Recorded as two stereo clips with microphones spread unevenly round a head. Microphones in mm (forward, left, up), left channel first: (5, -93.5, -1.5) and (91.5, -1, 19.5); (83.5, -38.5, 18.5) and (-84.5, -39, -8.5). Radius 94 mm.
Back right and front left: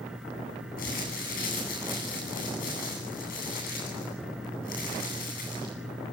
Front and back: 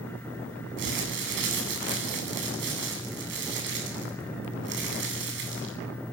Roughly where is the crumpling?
Behind.